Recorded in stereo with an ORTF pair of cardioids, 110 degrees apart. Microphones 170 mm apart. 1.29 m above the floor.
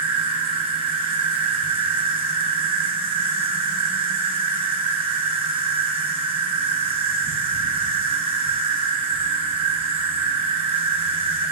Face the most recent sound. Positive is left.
turn(degrees=-30)